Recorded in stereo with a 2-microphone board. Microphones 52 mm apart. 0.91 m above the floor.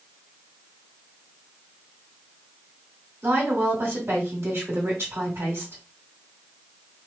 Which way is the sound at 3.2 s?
55° right (ahead or behind).